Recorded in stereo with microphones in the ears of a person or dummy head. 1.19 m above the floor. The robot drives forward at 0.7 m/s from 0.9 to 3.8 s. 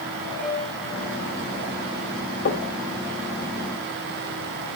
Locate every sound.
0.4 s a piano: 55° right (ahead or behind), 7.5 m; by 1.4 s 60° right (ahead or behind), 7.5 m
2.5 s knocking: 60° left (ahead or behind), 2.5 m; by 2.8 s 65° left (ahead or behind), 2.5 m